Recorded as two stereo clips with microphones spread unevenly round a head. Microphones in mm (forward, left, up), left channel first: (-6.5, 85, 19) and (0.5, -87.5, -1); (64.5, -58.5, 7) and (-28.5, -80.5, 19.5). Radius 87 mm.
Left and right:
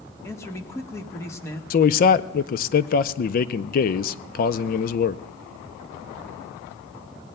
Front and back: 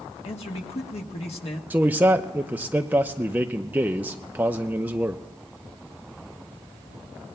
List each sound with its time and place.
0.2 s a man speaking: 15° left, 1.4 m
1.7 s a man speaking: 115° left, 0.5 m